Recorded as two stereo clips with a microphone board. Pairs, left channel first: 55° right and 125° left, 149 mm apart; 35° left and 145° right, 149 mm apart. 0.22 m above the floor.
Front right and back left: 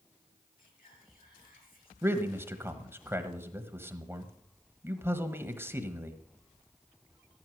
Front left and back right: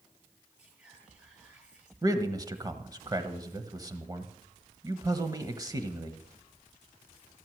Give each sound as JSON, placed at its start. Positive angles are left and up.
{"t": 0.6, "sound": "whispering", "azimuth_deg": -65, "distance_m": 6.0}
{"t": 2.0, "sound": "a man speaking", "azimuth_deg": 180, "distance_m": 1.3}